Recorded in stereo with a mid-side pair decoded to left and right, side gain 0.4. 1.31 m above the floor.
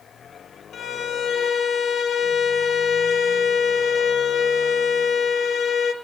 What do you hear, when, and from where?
0.7 s a violin: 60° left, 4 m